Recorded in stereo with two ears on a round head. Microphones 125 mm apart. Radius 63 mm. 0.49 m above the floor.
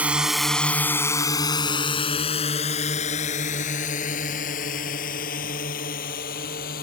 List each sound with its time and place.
0.0 s a drone: 10° right (ahead or behind); by 6.8 s 70° left (ahead or behind)